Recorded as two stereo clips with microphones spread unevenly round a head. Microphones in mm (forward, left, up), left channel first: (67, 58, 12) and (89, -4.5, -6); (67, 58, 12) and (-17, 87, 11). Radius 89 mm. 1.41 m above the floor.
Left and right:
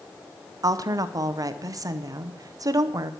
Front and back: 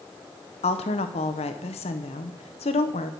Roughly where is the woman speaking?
Ahead right.